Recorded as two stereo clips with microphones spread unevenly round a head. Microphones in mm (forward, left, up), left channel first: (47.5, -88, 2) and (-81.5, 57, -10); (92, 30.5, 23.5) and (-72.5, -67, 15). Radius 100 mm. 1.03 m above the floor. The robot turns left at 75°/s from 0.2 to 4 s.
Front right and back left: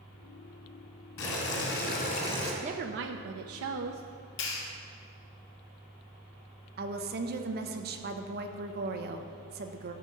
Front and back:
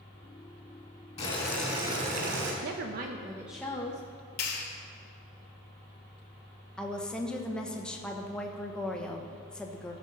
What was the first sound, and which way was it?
Boiling, 25° right.